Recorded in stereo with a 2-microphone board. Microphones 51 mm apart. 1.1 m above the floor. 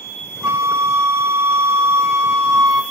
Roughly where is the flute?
Right.